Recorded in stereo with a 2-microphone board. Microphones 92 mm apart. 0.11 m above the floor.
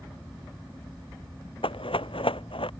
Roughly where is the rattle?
Left.